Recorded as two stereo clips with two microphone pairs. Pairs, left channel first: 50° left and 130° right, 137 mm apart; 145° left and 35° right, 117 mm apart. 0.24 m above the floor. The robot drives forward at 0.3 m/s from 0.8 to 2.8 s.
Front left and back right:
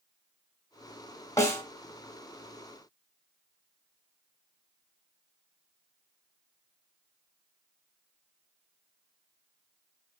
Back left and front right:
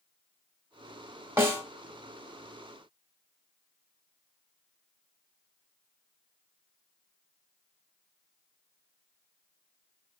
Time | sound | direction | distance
1.4 | a snare drum | 5° left | 1.3 m